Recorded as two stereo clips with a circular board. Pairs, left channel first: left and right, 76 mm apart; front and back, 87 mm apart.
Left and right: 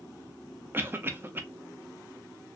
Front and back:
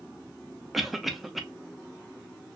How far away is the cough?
About 0.6 m.